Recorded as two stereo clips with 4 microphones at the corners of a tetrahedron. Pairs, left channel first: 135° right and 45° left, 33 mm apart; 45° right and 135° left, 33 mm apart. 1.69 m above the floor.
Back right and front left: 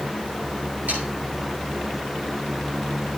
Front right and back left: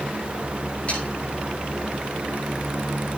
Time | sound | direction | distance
0.9 | sawing | 10° left | 8 m